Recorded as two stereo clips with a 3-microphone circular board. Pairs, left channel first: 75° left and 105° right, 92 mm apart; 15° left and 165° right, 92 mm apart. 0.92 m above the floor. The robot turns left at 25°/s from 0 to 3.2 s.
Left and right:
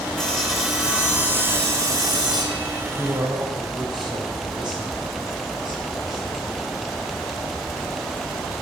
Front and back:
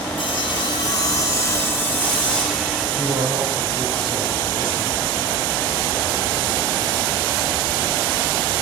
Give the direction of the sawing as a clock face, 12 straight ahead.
12 o'clock.